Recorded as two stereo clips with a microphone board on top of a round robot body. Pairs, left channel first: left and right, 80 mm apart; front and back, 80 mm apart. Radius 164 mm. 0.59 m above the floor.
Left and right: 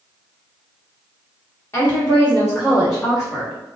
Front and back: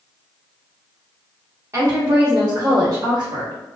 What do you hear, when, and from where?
1.7 s a woman speaking: 140° left, 1.1 m; by 3.5 s 175° right, 1.5 m